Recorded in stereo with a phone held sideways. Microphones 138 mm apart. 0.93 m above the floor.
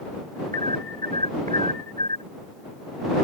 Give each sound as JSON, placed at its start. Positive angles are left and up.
{"t": 0.5, "sound": "an alarm", "side_deg": -70}